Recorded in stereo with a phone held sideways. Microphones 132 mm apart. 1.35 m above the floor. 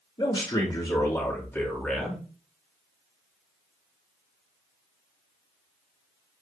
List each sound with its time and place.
0.2 s a man speaking: 35° left (ahead or behind), 3 m; by 2.2 s centre (ahead or behind), 2.5 m